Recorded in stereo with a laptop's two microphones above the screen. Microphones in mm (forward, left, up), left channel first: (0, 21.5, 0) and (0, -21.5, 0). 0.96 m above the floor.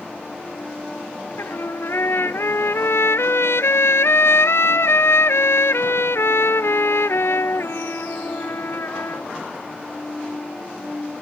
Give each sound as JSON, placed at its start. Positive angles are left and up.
{"t": 1.4, "sound": "a trumpet", "side_deg": 75}